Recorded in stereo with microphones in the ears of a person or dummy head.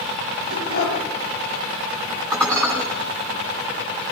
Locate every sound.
0.5 s a dog barking: 65° left (ahead or behind), 6.5 m
2.3 s dishes clattering: 5° left (ahead or behind), 10 m